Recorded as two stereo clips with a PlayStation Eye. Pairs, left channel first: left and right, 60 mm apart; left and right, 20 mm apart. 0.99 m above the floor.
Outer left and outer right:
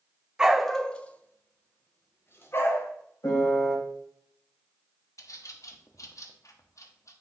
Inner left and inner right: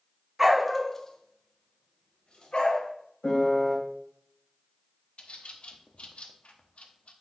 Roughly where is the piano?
Left.